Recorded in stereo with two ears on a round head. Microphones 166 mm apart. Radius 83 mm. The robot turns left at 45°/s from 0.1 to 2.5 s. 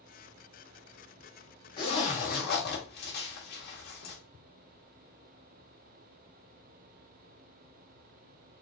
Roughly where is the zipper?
Left.